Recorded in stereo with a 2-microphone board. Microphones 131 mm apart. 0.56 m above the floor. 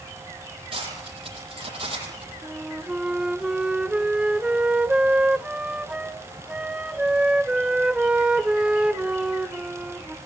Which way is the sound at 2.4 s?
10° right (ahead or behind).